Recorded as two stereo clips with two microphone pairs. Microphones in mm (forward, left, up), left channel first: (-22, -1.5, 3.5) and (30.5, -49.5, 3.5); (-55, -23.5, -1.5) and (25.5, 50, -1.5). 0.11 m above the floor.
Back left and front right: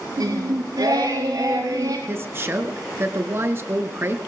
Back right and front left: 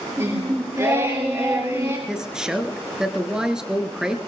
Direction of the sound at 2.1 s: 35° right.